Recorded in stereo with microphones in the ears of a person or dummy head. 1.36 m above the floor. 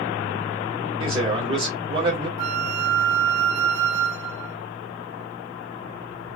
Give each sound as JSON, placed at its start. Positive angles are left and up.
{"t": 1.0, "sound": "a man speaking", "side_deg": -20, "distance_m": 2.0}
{"t": 2.4, "sound": "a flute", "side_deg": -65, "distance_m": 1.6}